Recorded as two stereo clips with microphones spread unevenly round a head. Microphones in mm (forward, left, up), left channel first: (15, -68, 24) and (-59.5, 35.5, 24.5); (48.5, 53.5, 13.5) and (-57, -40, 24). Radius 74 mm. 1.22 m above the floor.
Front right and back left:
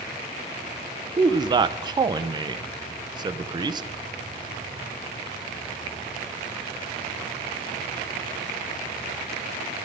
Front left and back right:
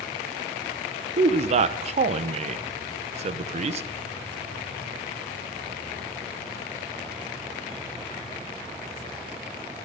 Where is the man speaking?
Straight behind, 0.8 m.